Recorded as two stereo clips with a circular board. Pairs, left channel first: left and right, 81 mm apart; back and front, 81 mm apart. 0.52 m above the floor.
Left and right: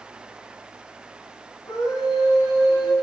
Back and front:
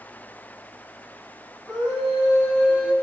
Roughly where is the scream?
Left.